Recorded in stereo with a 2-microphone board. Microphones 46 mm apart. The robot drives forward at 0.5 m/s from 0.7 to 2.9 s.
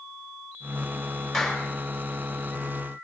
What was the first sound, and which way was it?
A clap, centre (ahead or behind).